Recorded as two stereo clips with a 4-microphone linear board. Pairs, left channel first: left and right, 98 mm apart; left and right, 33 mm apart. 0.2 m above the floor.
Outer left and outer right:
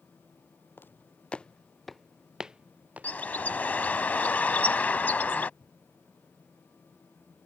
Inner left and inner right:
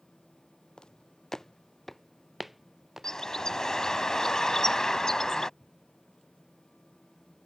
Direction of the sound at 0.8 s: 20° left (ahead or behind).